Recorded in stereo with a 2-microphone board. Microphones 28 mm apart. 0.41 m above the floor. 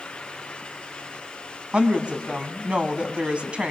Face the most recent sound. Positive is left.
turn(degrees=-40)  # may be behind; listen again after turning